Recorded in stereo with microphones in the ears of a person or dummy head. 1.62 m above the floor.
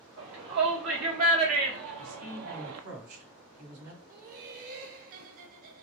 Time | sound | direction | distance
0.2 | a shout | 85° right | 2.5 m
2.0 | a man speaking | 85° right | 3 m
4.1 | laughter | 50° right (ahead or behind) | 0.7 m